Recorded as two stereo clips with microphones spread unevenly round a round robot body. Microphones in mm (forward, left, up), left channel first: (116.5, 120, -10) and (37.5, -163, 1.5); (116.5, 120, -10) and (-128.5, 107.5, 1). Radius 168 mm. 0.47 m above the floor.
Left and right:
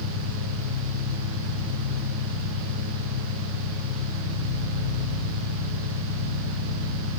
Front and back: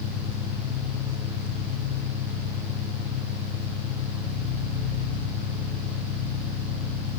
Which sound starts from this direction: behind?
An engine running, at 0.0 s.